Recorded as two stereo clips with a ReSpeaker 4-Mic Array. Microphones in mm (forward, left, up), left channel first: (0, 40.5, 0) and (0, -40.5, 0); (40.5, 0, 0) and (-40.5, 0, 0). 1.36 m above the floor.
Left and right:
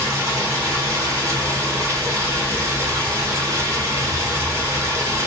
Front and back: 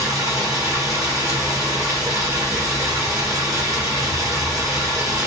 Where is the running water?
140° right, 2 m.